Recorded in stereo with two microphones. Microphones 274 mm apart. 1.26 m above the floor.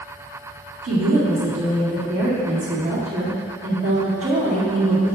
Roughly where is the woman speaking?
Right.